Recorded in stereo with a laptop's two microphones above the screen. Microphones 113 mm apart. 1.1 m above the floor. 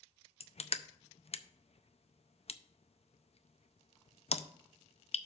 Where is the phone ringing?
I don't hear a phone ringing.